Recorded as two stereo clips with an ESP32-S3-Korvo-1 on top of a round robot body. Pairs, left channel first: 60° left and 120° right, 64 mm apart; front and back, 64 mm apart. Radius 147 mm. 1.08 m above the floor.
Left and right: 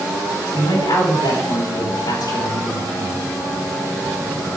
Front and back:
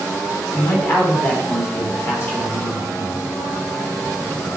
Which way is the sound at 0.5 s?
55° left.